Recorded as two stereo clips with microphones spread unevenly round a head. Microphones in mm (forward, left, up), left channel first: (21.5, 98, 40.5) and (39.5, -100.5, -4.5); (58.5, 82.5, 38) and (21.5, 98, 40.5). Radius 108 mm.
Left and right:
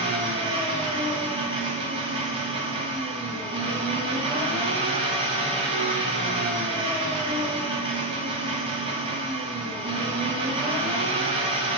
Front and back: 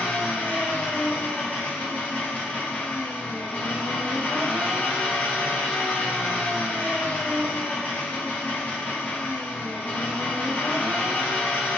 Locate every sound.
0.0 s an engine running: 30° right, 1.3 m